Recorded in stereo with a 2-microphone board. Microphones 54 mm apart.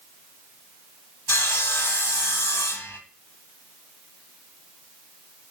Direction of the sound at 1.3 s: 50° left (ahead or behind).